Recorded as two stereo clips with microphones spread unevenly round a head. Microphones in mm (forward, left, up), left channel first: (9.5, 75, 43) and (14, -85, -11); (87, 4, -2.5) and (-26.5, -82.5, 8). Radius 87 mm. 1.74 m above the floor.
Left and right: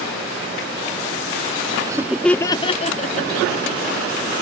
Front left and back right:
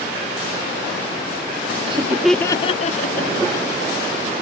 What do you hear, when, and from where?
1.9 s laughter: 175° right; by 3.8 s 65° left